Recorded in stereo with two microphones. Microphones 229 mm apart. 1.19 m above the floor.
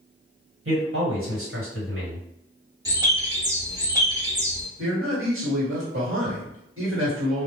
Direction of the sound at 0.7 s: 60° right (ahead or behind).